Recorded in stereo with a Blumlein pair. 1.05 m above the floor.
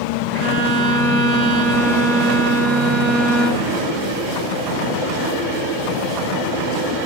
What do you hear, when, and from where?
0.3 s a violin: 40° right, 0.5 m